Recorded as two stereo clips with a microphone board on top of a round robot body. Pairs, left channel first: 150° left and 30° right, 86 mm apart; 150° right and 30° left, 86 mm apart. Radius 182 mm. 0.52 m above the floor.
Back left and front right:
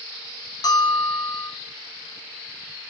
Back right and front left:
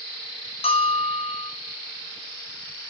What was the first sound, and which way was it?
A bell, 160° right.